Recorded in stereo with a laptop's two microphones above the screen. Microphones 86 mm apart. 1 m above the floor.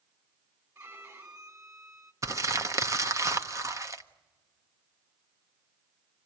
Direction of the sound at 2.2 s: 40° right (ahead or behind).